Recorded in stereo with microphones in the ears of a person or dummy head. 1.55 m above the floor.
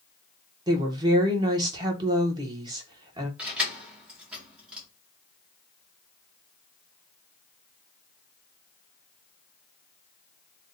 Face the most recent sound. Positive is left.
turn(degrees=-10)  # may be behind; listen again after turning